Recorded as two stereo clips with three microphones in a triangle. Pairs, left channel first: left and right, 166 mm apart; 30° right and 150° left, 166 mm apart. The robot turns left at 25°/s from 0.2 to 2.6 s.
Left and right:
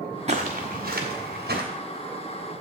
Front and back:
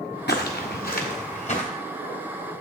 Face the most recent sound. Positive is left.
turn(degrees=-105)